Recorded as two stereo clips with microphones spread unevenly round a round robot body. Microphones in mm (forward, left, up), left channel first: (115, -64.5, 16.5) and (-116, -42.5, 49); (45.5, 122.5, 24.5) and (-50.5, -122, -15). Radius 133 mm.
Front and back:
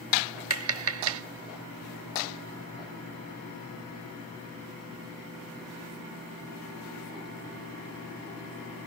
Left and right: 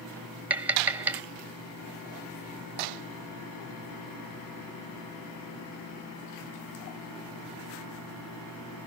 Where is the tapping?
175° left.